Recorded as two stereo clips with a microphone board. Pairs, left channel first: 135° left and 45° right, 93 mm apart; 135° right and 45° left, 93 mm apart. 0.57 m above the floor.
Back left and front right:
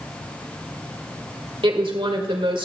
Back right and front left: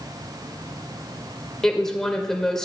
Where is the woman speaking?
50° right, 1.7 m.